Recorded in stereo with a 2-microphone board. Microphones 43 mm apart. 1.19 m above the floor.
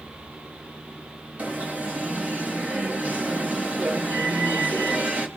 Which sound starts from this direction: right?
An alarm, at 1.4 s.